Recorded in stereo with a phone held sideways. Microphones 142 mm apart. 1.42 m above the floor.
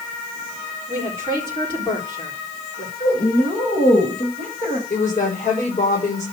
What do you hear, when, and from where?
0.9 s a woman speaking: 35° left (ahead or behind), 4.5 m
3.0 s a woman speaking: 70° left (ahead or behind), 6.5 m
4.9 s a woman speaking: 55° left (ahead or behind), 7 m